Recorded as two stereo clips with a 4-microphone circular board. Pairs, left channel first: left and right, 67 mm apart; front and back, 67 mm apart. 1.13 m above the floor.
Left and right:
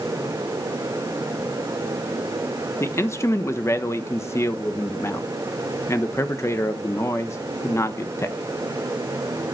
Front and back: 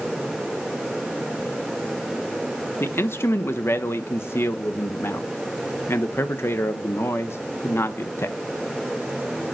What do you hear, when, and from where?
2.8 s a man speaking: 50° left, 1.1 m